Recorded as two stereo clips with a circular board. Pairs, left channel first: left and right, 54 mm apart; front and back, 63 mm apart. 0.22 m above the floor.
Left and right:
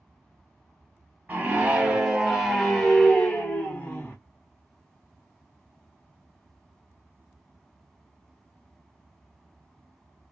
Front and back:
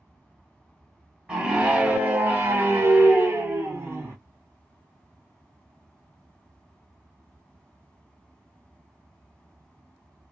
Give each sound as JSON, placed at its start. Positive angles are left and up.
{"t": 1.3, "sound": "a scream", "azimuth_deg": -115, "distance_m": 1.4}